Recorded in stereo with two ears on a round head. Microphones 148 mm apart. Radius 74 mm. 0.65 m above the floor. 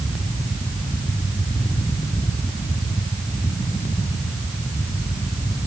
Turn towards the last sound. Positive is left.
No sound to turn to.